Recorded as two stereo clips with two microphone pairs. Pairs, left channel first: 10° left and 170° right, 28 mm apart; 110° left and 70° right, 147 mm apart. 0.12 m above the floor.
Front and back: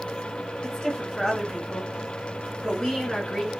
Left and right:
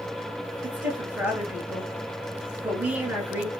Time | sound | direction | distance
0.6 | a woman speaking | 10° right | 1.6 m